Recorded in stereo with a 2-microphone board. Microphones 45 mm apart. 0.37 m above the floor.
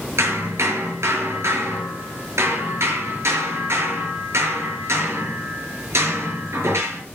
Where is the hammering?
80° right, 5.5 m.